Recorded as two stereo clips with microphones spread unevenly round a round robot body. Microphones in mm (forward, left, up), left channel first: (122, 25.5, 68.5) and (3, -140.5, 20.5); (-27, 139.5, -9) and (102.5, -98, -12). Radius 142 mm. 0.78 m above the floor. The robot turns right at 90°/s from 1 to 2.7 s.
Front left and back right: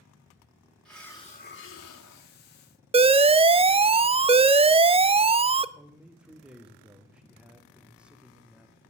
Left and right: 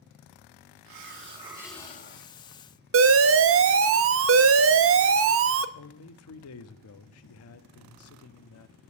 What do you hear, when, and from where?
0.8 s a hiss: 35° right, 2.0 m; by 2.3 s 85° left, 2.0 m
2.9 s an alarm: 85° right, 0.5 m
5.8 s a man speaking: 155° left, 0.8 m